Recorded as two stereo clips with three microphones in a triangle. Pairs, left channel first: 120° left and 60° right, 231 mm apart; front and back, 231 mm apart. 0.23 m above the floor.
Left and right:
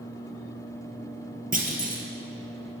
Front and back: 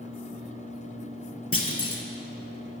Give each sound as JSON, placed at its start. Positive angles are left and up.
{"t": 1.5, "sound": "a clunk", "azimuth_deg": -10, "distance_m": 0.9}